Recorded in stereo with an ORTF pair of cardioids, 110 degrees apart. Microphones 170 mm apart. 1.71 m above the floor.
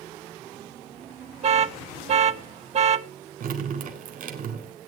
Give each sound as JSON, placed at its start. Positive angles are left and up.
{"t": 1.4, "sound": "an alarm", "azimuth_deg": -40, "distance_m": 0.8}
{"t": 3.4, "sound": "dripping", "azimuth_deg": -60, "distance_m": 3.5}